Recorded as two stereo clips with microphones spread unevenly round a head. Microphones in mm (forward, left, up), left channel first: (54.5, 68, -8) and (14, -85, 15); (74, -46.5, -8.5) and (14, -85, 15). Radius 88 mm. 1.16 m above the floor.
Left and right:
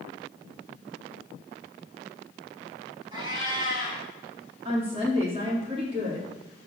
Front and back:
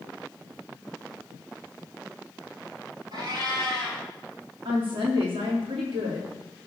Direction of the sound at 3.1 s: 170° right.